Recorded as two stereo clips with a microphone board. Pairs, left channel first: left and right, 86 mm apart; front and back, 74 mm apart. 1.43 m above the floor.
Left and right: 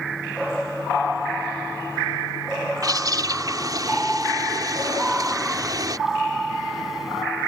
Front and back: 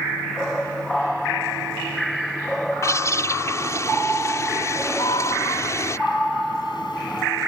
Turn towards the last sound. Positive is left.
turn(degrees=-5)